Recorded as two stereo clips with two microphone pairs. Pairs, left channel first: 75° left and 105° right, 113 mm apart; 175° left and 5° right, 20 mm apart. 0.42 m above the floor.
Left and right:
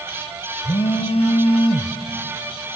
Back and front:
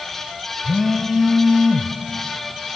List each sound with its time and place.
0.6 s a phone buzzing: 95° left, 1.3 m